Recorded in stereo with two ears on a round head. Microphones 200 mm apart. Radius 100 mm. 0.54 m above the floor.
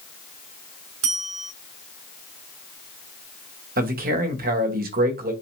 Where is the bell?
65° right (ahead or behind), 3 m.